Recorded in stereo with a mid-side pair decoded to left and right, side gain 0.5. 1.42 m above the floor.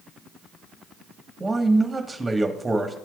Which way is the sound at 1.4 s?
20° right.